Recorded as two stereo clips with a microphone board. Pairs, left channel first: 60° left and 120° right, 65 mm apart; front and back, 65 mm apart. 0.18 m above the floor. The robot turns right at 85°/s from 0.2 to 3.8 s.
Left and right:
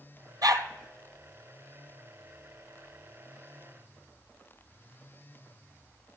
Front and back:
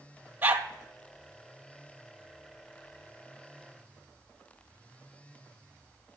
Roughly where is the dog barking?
Behind right.